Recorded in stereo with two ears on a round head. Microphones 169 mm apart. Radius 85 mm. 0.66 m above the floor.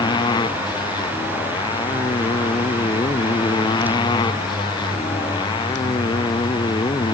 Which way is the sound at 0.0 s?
20° left (ahead or behind).